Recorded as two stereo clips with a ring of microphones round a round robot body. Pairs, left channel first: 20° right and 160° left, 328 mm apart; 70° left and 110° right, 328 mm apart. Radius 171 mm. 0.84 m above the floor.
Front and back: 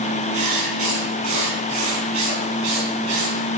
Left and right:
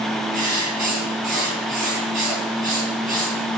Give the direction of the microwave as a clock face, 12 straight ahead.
I don't hear a microwave.